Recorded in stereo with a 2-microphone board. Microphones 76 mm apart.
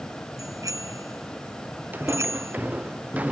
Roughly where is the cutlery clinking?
No cutlery clinking in this recording.